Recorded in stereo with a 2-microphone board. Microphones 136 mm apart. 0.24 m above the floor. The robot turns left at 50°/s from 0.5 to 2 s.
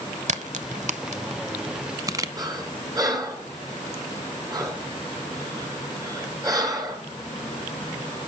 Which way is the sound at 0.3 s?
60° right (ahead or behind).